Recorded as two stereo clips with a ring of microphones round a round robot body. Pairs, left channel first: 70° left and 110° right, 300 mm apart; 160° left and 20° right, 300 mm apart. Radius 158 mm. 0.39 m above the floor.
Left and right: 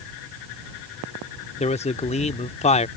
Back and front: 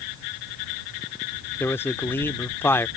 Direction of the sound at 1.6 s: 85° left.